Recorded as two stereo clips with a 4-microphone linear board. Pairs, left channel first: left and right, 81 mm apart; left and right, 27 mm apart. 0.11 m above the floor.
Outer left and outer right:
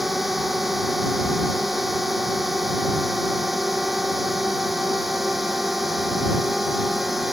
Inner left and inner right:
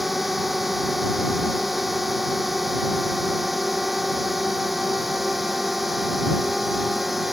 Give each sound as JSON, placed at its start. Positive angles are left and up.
{"t": 0.0, "sound": "a drone", "side_deg": 0}